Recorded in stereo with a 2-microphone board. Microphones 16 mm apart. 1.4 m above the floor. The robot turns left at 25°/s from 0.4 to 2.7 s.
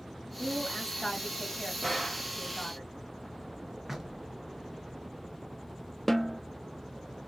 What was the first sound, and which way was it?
A woman speaking, 160° left.